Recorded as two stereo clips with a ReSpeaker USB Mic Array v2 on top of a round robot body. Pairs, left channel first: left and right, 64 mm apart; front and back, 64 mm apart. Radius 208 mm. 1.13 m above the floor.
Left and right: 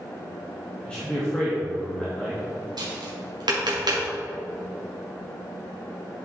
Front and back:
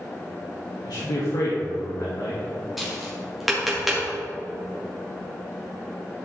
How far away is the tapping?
About 2 m.